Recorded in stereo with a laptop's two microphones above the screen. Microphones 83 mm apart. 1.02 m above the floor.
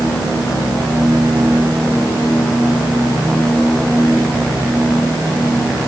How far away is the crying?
No crying in this recording.